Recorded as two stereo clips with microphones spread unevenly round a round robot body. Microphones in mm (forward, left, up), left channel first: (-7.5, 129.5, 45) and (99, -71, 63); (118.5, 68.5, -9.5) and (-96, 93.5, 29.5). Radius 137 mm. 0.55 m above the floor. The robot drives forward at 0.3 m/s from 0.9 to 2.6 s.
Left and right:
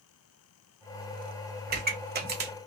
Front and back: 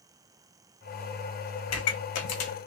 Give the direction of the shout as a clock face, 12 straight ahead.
No shout in this recording.